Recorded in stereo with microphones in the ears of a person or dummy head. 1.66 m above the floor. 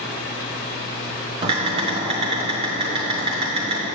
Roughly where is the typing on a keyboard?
Right.